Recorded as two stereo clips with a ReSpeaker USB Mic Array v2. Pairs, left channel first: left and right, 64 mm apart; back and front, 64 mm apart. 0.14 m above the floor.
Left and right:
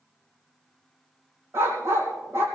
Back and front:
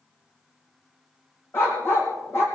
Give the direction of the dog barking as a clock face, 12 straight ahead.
4 o'clock.